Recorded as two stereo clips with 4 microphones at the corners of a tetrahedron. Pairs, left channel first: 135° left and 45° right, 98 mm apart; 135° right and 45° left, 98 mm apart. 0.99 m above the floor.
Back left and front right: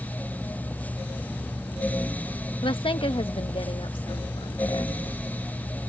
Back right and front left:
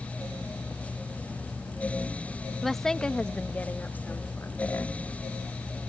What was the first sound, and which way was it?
A woman speaking, 135° left.